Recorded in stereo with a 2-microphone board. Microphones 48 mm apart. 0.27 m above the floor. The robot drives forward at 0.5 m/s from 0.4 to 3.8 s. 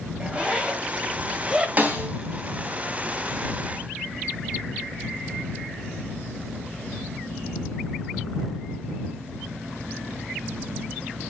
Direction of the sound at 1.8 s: 35° right (ahead or behind).